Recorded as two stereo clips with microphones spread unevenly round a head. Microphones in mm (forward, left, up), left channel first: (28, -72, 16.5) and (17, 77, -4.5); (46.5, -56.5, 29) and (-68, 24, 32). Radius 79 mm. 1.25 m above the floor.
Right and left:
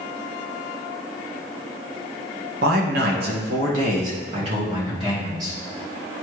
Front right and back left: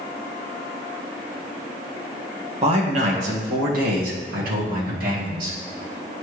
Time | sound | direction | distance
2.6 | a man speaking | 95° left | 1.4 m